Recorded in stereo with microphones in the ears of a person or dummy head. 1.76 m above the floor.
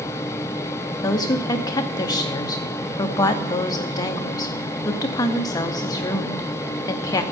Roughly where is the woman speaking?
Left.